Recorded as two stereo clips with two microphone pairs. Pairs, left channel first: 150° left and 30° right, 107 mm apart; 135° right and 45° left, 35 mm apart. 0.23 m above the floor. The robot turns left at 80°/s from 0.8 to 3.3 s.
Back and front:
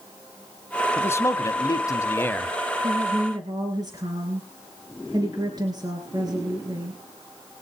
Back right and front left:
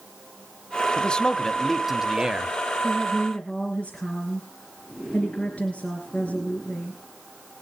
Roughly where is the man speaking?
Behind.